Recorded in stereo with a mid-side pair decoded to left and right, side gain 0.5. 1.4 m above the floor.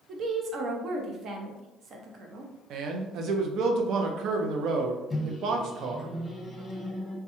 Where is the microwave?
15° left, 0.8 m.